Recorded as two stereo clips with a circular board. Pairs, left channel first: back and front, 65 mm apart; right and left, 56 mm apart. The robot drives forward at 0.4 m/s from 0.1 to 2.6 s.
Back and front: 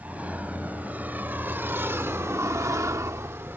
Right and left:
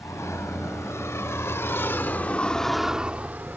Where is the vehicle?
65° right; by 3.6 s 45° left.